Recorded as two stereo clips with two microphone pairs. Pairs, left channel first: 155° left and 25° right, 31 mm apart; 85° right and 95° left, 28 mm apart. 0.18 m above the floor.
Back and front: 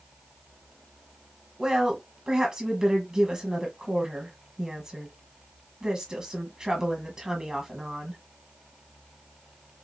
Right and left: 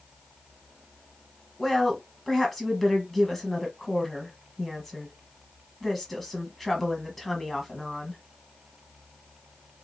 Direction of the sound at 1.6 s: 10° right.